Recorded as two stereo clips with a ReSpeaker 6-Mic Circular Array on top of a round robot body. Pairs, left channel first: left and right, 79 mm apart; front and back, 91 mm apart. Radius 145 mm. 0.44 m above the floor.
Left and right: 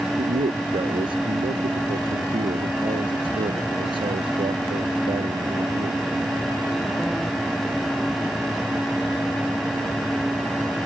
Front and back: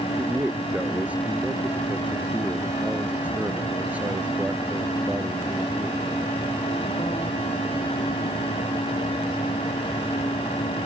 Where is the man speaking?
105° right.